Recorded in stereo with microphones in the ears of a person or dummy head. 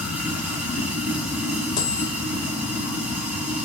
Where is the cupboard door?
No cupboard door in this recording.